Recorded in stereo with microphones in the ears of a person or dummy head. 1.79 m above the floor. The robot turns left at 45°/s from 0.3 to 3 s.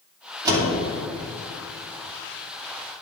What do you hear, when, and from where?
0.5 s a door slam: 20° right (ahead or behind), 2.5 m; by 0.7 s 25° right (ahead or behind), 2.5 m